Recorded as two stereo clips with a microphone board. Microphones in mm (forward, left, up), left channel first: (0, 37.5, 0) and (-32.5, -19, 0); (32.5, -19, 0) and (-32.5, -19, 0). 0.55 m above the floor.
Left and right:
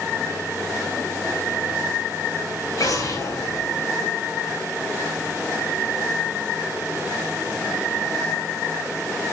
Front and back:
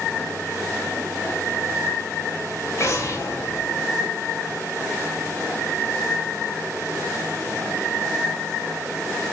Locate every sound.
2.8 s an explosion: 35° left, 2 m